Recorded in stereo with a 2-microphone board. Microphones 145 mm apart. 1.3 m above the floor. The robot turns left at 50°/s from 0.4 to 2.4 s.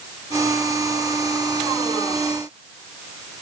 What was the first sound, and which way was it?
Only background noise.